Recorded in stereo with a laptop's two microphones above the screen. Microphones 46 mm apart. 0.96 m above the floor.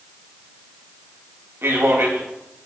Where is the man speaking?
65° right (ahead or behind), 1.4 m.